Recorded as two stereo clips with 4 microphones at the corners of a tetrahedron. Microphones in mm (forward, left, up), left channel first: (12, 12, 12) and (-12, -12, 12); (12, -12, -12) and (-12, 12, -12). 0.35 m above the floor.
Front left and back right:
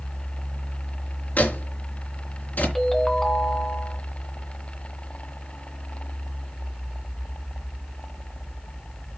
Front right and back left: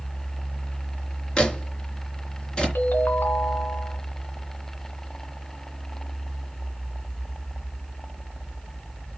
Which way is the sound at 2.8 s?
35° right.